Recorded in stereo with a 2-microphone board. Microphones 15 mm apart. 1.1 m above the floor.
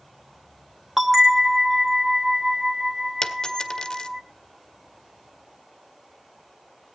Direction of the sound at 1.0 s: 20° right (ahead or behind).